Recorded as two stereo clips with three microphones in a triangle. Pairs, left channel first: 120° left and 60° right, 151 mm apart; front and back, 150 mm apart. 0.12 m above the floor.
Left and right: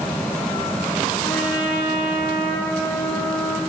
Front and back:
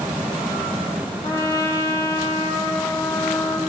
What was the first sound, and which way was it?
A trumpet, 65° left.